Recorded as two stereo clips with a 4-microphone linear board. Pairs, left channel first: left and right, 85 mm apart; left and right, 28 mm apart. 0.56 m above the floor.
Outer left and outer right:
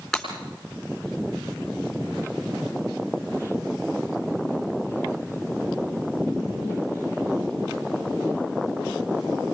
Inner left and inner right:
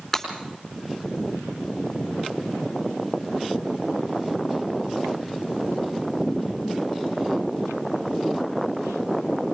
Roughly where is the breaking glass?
Centre.